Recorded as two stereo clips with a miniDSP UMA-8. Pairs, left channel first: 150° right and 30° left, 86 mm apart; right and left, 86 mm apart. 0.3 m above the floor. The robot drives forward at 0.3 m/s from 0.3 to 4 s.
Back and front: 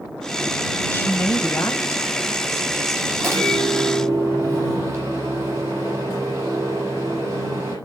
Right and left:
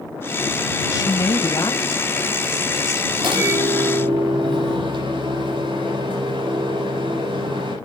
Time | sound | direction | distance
0.9 | a woman speaking | 95° right | 1.5 m
3.2 | a microwave | 90° left | 9.5 m